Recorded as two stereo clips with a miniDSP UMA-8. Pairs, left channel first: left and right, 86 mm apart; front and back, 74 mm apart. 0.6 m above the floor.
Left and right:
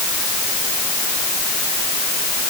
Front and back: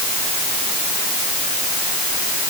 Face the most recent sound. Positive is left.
No sound to turn to.